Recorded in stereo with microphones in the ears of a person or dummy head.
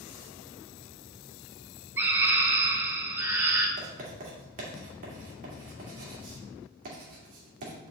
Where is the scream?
15° right (ahead or behind), 0.7 m.